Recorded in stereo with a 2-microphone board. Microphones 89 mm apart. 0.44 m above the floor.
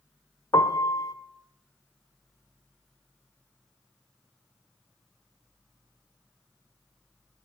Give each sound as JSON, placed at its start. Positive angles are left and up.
{"t": 0.5, "sound": "a piano", "side_deg": 45, "distance_m": 0.7}